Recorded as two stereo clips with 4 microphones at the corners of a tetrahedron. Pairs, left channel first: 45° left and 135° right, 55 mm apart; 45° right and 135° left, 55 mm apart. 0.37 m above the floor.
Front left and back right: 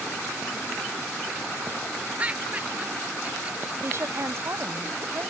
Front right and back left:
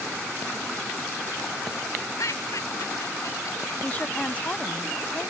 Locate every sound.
2.2 s laughter: 65° right
3.8 s a woman speaking: 105° right